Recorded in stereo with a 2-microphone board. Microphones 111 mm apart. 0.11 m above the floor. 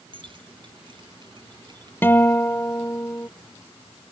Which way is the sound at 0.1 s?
50° right (ahead or behind).